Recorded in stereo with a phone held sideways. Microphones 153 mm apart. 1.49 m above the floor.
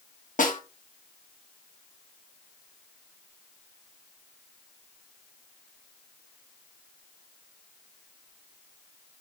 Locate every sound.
0.4 s a snare drum: 60° left (ahead or behind), 1.1 m